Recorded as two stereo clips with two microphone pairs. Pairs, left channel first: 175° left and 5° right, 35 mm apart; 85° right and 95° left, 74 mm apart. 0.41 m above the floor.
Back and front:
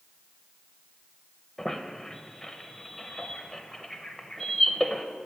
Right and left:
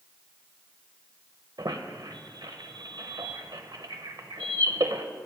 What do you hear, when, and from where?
1.6 s a squeak: 100° left, 0.7 m